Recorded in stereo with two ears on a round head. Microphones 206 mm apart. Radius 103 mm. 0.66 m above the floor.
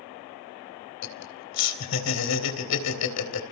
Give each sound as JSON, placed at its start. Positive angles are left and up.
{"t": 1.0, "sound": "laughter", "side_deg": 75, "distance_m": 3.5}